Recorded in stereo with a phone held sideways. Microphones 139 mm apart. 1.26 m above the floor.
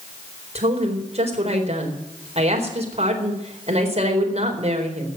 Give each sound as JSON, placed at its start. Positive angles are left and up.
{"t": 0.6, "sound": "a woman speaking", "side_deg": -50, "distance_m": 4.0}